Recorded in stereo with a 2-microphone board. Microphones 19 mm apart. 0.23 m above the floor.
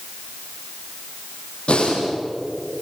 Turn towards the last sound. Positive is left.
turn(degrees=85)